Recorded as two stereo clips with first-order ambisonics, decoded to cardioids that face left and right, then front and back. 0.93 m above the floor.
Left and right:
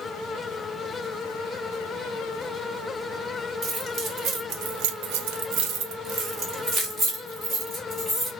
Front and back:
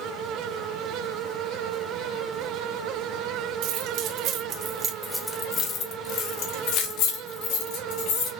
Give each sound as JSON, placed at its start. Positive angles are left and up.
{"t": 3.6, "sound": "keys jangling", "azimuth_deg": -150, "distance_m": 1.6}